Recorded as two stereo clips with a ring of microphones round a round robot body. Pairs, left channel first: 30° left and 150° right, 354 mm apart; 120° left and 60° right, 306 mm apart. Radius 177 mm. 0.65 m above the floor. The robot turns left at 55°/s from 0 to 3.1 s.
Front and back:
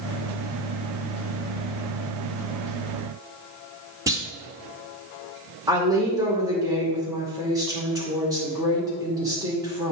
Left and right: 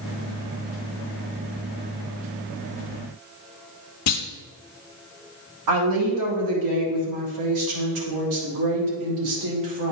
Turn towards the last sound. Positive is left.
turn(degrees=-70)